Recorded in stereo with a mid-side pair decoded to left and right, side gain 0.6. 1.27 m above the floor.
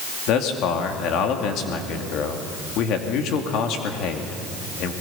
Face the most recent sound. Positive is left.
turn(degrees=65)